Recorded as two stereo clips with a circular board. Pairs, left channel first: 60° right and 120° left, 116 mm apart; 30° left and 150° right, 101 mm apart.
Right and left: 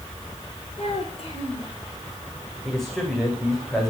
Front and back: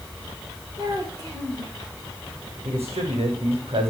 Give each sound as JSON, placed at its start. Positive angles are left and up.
{"t": 0.8, "sound": "a child speaking", "azimuth_deg": -100, "distance_m": 7.0}
{"t": 2.6, "sound": "a man speaking", "azimuth_deg": -150, "distance_m": 7.5}